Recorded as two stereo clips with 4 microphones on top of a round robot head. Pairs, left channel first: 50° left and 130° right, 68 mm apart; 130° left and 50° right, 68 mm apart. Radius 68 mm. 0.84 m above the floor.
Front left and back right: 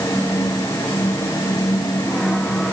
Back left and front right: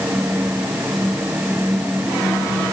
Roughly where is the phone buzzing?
No phone buzzing in this recording.